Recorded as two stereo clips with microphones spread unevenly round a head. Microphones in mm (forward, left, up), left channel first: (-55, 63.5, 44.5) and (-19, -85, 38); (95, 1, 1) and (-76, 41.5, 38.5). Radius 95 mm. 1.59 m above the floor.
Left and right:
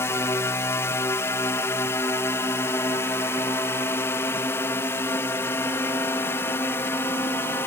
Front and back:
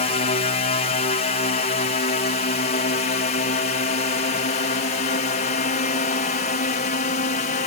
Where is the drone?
30° left; by 7.7 s 25° left.